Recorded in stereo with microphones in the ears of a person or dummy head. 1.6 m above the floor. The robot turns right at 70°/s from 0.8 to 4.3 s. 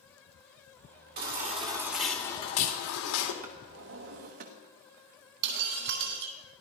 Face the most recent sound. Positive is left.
turn(degrees=-55)  # may be behind; listen again after turning